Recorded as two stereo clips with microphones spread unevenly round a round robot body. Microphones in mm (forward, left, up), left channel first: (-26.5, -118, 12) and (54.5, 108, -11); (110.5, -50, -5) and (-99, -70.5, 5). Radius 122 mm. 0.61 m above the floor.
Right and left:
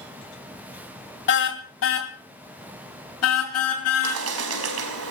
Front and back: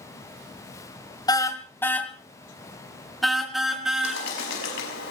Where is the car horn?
65° right, 2 m; by 4.2 s 90° right, 5.5 m.